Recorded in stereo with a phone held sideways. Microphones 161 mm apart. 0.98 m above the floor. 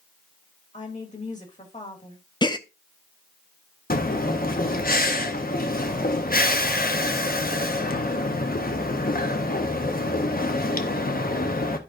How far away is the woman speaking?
About 2 m.